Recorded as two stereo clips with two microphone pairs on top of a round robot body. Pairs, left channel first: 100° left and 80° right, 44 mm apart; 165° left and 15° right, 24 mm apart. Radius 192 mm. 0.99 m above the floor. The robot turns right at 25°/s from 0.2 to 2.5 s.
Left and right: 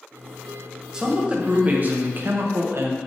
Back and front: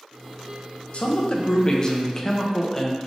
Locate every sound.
0.9 s a man speaking: 150° right, 0.7 m; by 3.0 s 110° right, 0.7 m